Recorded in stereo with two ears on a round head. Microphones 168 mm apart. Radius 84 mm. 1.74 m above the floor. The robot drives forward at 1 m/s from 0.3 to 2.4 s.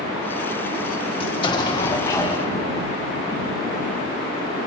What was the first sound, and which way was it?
An explosion, 30° left (ahead or behind).